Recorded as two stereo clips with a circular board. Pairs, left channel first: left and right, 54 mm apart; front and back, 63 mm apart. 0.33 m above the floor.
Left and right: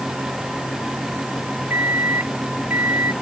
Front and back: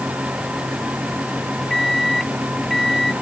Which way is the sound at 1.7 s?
85° right.